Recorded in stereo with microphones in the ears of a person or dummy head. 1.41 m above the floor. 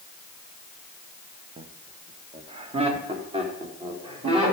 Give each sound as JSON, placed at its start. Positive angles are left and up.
{"t": 1.6, "sound": "laughter", "side_deg": -30, "distance_m": 0.7}